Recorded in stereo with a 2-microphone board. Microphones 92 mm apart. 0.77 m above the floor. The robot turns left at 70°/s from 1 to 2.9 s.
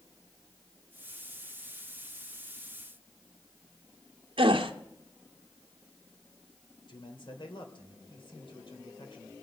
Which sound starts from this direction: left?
A man speaking, at 6.9 s.